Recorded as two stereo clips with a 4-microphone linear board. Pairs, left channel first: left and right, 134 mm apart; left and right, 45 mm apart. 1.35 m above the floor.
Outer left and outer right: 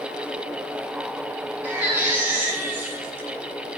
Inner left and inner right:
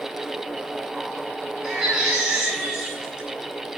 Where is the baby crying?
15° right (ahead or behind), 9 m.